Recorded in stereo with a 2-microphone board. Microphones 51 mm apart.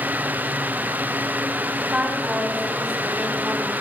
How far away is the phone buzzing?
I don't hear a phone buzzing.